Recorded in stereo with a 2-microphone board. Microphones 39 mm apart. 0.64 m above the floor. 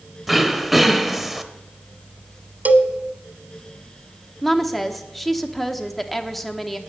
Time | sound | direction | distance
0.3 | throat clearing | centre (ahead or behind) | 0.7 m
2.6 | a cowbell | 45° right (ahead or behind) | 0.8 m
4.4 | a woman speaking | 5° left (ahead or behind) | 0.9 m